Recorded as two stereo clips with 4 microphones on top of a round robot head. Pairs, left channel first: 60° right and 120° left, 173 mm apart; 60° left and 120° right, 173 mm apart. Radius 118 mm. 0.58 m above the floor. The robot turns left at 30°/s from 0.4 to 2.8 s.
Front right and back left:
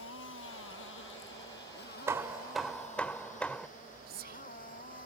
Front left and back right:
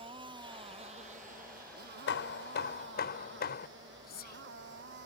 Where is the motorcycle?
60° right; by 5.1 s 100° right.